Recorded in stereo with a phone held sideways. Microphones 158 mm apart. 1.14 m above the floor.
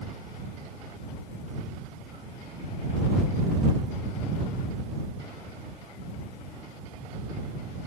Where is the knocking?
I don't hear knocking.